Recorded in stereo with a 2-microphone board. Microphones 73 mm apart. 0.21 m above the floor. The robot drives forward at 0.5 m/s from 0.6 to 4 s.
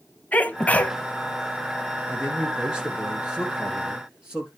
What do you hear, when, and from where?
0.3 s a sneeze: 20° left (ahead or behind), 1.0 m
2.1 s a man speaking: 10° right (ahead or behind), 2.5 m